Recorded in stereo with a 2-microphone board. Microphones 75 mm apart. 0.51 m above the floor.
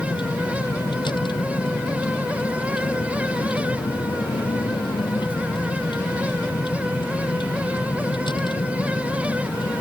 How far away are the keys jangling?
No keys jangling in this recording.